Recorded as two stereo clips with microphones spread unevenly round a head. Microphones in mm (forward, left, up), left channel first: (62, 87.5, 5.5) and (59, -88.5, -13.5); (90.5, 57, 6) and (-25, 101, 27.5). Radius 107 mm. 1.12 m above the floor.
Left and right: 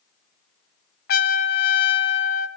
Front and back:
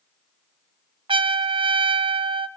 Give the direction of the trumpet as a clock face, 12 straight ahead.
8 o'clock.